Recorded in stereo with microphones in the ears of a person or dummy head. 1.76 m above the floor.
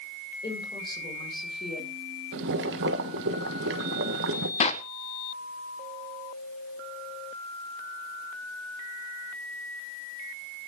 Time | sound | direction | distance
0.4 | a woman speaking | 25° left (ahead or behind) | 7 m
2.3 | boiling | 65° right (ahead or behind) | 1.3 m
4.6 | a clap | 35° left (ahead or behind) | 1.1 m